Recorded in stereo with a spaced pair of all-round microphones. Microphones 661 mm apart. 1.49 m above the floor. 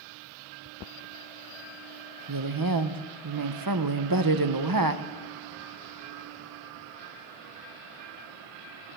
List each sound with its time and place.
2.3 s a woman speaking: 35° right (ahead or behind), 0.8 m